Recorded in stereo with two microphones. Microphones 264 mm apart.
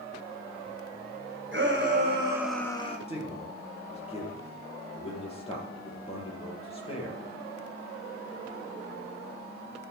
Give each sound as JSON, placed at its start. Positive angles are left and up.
{"t": 1.5, "sound": "a shout", "side_deg": -45, "distance_m": 2.0}
{"t": 3.1, "sound": "a man speaking", "side_deg": 20, "distance_m": 4.0}